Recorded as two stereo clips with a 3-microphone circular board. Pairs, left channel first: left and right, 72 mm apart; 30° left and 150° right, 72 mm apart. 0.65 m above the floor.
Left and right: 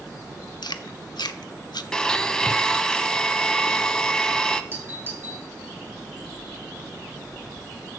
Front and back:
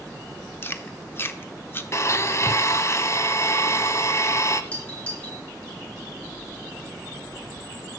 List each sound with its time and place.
0.6 s chewing: 85° left, 0.7 m
1.9 s a blender: 15° left, 0.6 m
4.7 s a doorbell: 40° right, 3 m